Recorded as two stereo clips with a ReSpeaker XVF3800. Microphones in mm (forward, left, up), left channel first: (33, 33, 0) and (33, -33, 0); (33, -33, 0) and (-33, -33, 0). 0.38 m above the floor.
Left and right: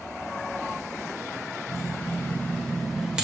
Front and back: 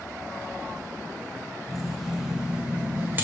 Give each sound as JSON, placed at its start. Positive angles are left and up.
{"t": 1.7, "sound": "keys jangling", "azimuth_deg": 85, "distance_m": 1.3}